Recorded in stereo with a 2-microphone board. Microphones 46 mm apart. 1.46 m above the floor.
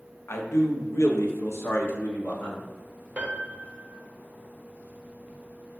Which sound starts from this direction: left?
A man speaking, at 0.3 s.